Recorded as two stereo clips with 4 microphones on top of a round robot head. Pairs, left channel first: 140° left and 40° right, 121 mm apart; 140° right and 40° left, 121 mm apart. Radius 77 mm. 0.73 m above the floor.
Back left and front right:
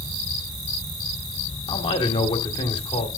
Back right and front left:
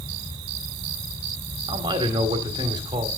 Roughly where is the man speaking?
Left.